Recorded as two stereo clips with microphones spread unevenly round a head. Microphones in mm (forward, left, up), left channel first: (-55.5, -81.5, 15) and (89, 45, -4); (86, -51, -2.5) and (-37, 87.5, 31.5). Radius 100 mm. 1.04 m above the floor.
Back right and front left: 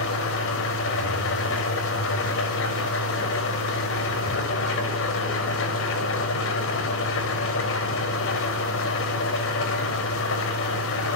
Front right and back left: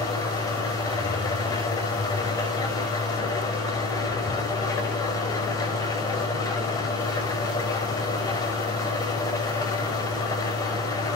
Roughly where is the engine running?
Behind right.